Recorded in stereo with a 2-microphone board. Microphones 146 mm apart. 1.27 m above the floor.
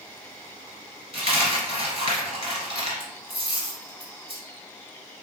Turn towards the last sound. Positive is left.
turn(degrees=-40)  # may be behind; listen again after turning